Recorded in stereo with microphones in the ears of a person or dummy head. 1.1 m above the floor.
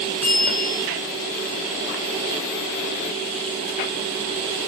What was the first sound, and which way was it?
A bell, 5° left (ahead or behind).